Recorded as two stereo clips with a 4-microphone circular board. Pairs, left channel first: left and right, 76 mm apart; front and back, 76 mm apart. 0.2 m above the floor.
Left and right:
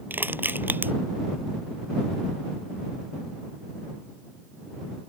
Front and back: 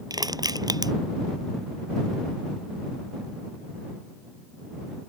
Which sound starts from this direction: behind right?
Crushing, at 0.1 s.